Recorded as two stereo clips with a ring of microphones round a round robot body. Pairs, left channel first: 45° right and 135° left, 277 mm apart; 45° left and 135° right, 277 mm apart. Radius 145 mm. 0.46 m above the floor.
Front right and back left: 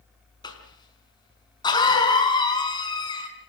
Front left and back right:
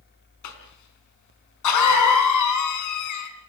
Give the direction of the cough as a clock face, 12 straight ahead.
11 o'clock.